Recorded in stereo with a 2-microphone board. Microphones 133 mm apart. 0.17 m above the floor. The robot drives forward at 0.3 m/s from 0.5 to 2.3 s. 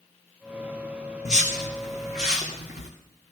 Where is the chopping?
I don't hear chopping.